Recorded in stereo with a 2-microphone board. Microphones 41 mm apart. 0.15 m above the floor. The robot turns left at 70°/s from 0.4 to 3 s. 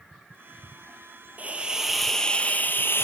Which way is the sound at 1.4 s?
135° right.